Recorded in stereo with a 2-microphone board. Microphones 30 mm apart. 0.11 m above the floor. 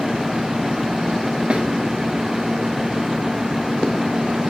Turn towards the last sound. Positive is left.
turn(degrees=-35)  # may be behind; listen again after turning